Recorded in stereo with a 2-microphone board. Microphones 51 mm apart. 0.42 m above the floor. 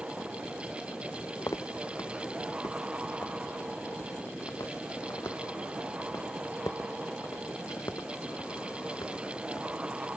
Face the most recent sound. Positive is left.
turn(degrees=70)  # may be behind; listen again after turning